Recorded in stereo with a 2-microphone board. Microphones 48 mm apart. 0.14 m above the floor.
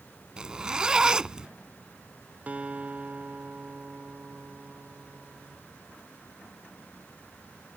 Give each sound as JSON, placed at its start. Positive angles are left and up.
{"t": 0.4, "sound": "a zipper", "side_deg": -20}
{"t": 2.5, "sound": "a guitar", "side_deg": -30}